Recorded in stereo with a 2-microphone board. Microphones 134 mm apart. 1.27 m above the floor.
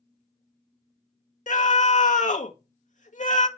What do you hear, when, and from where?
1.5 s a scream: 80° left, 1.8 m